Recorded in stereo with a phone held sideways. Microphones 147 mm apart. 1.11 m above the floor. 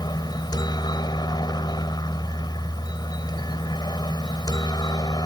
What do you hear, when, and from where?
0.0 s a helicopter: 30° left (ahead or behind)